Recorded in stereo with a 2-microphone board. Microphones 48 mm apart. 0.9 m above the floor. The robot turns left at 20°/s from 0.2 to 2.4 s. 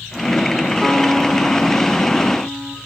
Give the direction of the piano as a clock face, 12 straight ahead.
6 o'clock.